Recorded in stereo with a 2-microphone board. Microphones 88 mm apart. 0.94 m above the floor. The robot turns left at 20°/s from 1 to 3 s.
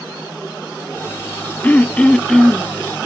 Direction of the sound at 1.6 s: 20° left (ahead or behind).